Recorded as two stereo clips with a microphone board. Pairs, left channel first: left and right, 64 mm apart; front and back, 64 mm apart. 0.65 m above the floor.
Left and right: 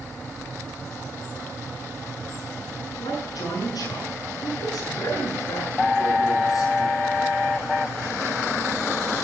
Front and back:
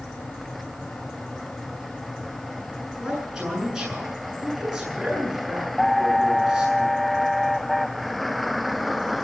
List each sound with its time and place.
3.0 s a man speaking: 95° left, 7.5 m